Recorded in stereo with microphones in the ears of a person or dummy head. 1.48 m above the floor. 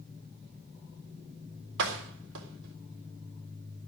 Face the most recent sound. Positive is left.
turn(degrees=-70)  # may be behind; listen again after turning